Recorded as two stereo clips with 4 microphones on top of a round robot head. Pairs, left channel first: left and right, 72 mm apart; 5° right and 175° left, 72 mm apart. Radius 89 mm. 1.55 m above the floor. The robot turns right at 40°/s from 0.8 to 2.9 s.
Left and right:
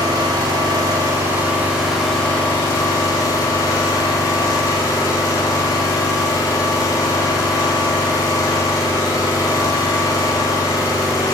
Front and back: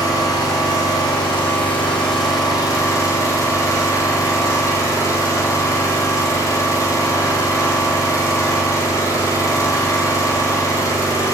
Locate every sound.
0.0 s an engine running: 45° right, 4 m; by 11.3 s 35° left, 4 m